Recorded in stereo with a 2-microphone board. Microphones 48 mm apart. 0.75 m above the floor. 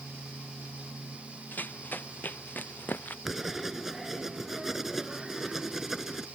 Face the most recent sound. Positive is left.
turn(degrees=-10)  # may be behind; listen again after turning